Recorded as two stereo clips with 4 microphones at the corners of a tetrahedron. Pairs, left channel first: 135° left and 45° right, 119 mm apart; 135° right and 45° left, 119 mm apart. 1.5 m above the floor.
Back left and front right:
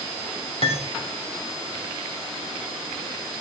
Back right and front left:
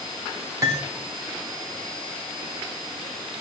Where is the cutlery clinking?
105° left, 2.5 m.